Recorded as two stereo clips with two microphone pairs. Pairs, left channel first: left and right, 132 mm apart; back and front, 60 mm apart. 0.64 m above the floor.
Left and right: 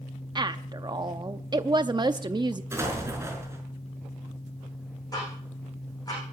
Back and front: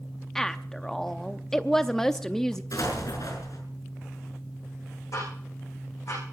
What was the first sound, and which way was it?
A woman speaking, 100° right.